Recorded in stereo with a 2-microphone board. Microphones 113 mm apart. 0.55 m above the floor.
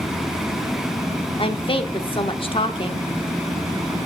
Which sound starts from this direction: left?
A woman speaking, at 1.4 s.